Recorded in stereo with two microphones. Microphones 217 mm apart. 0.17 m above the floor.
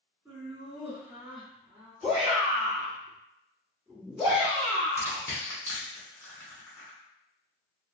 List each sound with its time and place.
0.2 s laughter: 10° right (ahead or behind), 1.9 m
2.0 s a shout: 25° right (ahead or behind), 1.7 m
5.0 s crushing: 10° left (ahead or behind), 1.4 m